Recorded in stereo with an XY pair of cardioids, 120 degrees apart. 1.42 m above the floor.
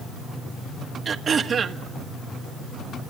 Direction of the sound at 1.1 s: 40° right.